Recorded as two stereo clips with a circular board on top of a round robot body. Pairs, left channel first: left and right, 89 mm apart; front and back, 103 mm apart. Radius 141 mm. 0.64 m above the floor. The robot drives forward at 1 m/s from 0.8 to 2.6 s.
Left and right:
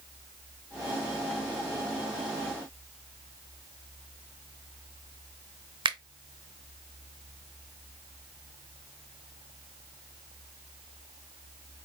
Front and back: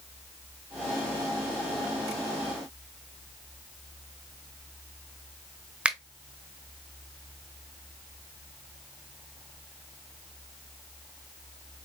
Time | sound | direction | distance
5.8 | a finger snap | 100° right | 0.9 m